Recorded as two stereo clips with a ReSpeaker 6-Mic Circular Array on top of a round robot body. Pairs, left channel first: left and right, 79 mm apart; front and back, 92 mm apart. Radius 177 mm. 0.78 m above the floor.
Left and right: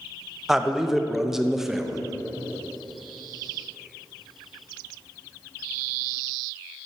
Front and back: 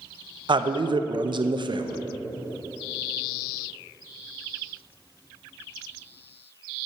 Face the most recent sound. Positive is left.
turn(degrees=-175)